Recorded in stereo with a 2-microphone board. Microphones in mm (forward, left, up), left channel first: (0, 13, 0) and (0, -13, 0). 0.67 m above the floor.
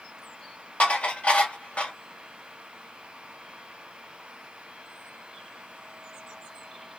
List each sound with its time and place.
0.8 s dishes clattering: 70° left (ahead or behind), 1.5 m